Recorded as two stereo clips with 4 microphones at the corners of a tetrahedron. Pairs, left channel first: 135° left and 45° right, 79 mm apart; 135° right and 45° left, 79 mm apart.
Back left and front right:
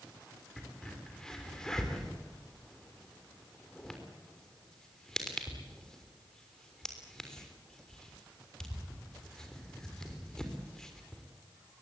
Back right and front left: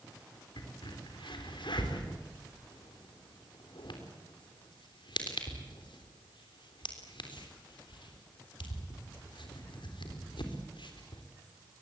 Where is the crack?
140° right, 3.5 m.